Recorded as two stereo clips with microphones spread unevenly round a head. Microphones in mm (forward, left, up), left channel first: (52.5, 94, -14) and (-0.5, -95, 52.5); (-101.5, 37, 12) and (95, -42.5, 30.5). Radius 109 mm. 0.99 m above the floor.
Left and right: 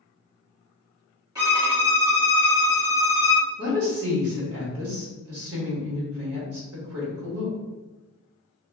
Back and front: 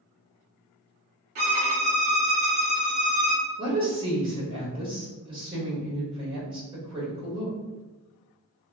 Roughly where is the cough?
I don't hear a cough.